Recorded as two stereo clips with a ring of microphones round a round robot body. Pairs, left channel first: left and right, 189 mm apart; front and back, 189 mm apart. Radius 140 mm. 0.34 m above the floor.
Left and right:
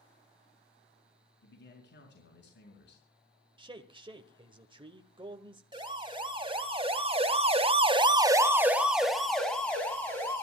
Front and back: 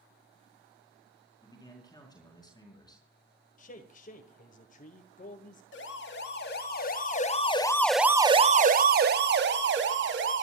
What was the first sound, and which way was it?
A man speaking, 70° left.